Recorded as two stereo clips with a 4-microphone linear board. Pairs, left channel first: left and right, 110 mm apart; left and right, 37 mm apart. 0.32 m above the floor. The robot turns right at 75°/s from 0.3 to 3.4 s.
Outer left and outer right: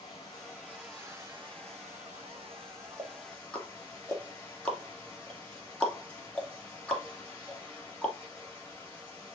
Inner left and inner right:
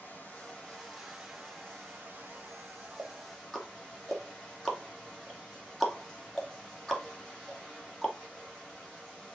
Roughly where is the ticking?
Right.